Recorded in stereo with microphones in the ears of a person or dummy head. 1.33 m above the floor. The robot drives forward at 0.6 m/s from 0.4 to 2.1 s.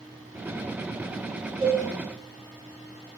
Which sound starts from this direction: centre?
A cowbell, at 1.6 s.